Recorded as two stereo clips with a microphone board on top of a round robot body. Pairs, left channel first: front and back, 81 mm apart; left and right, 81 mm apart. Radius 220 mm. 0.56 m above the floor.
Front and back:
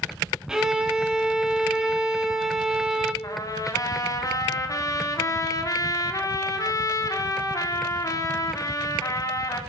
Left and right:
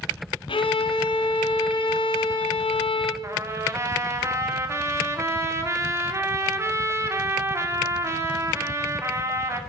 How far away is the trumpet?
About 2.5 m.